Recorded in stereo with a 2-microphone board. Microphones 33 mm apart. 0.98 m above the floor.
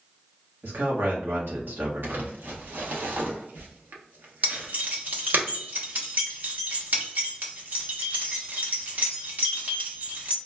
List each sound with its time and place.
0.6 s a man speaking: 85° right, 1.2 m
2.0 s crumpling: 75° right (ahead or behind), 0.7 m
4.4 s keys jangling: 60° right (ahead or behind), 0.8 m